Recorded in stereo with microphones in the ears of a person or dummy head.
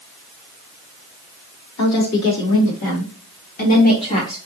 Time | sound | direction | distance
1.8 | a woman speaking | 80° left | 2 m